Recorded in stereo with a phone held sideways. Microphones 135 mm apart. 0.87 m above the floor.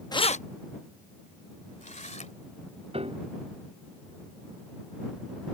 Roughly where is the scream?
No scream in this recording.